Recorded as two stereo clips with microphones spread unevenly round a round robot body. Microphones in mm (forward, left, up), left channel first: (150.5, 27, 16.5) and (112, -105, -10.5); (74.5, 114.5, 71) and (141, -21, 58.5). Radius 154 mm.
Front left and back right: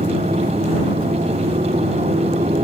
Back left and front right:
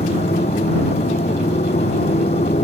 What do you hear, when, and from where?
0.0 s a motorcycle: straight behind